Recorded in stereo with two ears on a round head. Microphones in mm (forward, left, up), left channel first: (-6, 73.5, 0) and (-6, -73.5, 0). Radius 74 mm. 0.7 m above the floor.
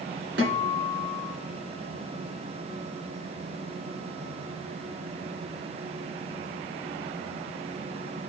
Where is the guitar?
75° right (ahead or behind), 2 m.